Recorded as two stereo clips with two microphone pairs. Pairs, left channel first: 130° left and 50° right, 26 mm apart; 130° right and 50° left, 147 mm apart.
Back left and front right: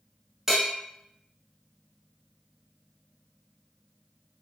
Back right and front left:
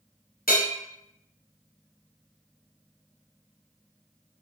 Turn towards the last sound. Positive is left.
turn(degrees=-125)